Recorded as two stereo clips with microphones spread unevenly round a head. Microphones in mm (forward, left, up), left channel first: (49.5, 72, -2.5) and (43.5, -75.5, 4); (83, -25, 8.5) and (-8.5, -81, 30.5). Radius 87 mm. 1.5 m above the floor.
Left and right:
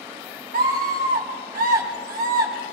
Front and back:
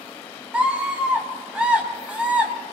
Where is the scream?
70° right, 5 m.